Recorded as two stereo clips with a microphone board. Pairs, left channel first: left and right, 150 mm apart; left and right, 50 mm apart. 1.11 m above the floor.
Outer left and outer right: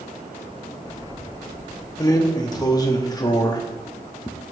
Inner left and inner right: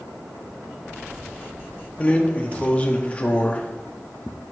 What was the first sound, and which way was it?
A drawer, 25° left (ahead or behind).